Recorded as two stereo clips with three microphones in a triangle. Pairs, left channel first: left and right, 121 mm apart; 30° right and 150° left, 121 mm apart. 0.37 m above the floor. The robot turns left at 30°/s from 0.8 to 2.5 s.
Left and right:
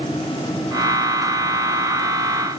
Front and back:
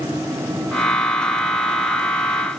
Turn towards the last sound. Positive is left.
No sound to turn to.